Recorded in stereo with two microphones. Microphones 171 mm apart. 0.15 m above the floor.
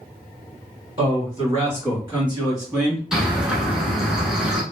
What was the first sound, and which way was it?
A man speaking, 30° right (ahead or behind).